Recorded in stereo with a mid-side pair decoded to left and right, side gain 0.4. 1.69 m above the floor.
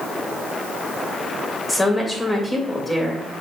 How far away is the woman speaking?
About 3 m.